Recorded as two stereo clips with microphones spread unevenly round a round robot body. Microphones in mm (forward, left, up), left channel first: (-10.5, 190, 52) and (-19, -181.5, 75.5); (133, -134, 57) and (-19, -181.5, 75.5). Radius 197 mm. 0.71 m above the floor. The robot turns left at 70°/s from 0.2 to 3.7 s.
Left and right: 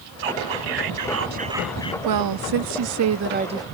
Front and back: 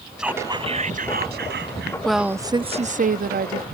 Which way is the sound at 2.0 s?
65° right.